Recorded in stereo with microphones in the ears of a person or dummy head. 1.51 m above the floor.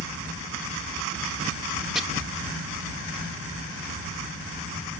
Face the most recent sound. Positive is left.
turn(degrees=0)  # may be behind; listen again after turning